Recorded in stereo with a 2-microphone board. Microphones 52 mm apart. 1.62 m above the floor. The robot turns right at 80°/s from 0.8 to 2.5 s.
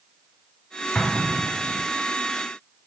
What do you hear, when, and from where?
0.9 s an explosion: 15° left (ahead or behind), 0.9 m; by 1.9 s 60° right (ahead or behind), 0.9 m